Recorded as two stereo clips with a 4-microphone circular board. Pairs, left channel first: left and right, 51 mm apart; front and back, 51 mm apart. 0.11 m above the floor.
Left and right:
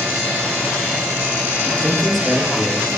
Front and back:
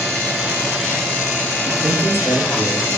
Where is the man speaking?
170° left, 2.5 m.